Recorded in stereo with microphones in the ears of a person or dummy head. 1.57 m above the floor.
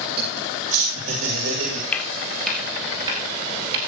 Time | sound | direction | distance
0.2 | laughter | 35° right (ahead or behind) | 3 m
1.9 | footsteps | 5° left (ahead or behind) | 1.7 m